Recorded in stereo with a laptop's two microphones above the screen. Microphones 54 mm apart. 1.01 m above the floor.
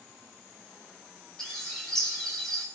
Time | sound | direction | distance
1.4 | a bird | 10° left (ahead or behind) | 8 m